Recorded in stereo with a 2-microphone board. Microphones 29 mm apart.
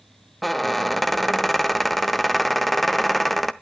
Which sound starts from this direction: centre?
A squeak, at 0.4 s.